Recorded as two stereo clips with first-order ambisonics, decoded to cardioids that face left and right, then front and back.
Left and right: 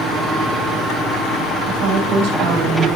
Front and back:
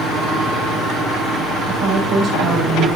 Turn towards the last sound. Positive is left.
turn(degrees=-105)